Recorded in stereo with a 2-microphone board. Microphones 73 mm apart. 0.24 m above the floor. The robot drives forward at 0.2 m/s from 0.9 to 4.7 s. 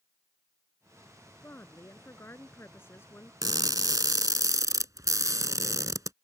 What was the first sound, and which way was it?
A woman speaking, 30° left (ahead or behind).